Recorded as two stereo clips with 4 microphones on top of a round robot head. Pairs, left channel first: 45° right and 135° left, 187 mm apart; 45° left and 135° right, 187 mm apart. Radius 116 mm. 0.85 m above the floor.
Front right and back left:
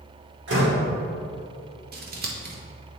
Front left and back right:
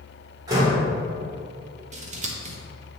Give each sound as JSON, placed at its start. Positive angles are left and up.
{"t": 0.5, "sound": "a door slam", "azimuth_deg": 155, "distance_m": 2.0}
{"t": 1.9, "sound": "scissors", "azimuth_deg": 175, "distance_m": 1.2}